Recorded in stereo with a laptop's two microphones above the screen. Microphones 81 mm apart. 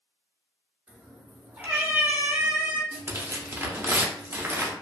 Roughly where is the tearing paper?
Right.